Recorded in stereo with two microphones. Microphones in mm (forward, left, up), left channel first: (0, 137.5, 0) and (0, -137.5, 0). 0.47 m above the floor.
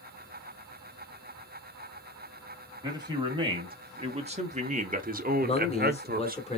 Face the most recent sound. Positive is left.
turn(degrees=20)  # may be behind; listen again after turning